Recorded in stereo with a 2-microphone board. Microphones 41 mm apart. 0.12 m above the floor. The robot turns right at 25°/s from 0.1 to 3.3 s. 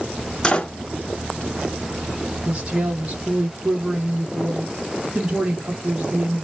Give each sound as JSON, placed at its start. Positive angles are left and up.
{"t": 0.4, "sound": "a door slam", "side_deg": 20, "distance_m": 0.8}
{"t": 2.5, "sound": "a woman speaking", "side_deg": -30, "distance_m": 1.7}